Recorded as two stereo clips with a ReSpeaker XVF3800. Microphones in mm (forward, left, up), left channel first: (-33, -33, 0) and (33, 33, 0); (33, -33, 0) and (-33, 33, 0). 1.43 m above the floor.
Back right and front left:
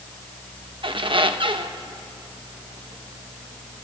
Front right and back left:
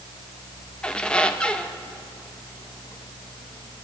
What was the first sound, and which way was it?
A squeak, 35° left.